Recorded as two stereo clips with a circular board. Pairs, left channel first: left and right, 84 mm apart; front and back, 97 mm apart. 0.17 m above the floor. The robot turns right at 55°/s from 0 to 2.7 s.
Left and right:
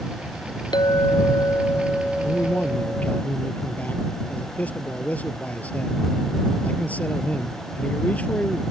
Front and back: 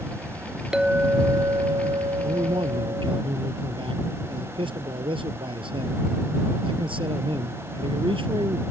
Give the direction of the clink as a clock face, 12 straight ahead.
9 o'clock.